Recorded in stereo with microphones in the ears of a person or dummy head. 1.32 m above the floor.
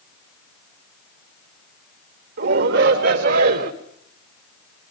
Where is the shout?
65° right (ahead or behind), 4 m; by 3.7 s 60° right (ahead or behind), 3 m.